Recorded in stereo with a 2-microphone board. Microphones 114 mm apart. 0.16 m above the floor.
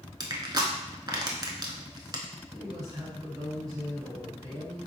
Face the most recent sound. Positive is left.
turn(degrees=-35)  # may be behind; listen again after turning